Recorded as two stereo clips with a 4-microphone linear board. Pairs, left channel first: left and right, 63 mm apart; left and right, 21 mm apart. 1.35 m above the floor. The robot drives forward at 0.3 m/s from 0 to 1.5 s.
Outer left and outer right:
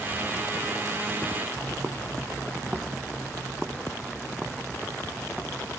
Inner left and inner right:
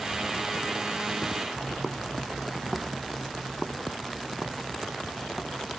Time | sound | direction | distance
1.6 | footsteps | 45° right (ahead or behind) | ?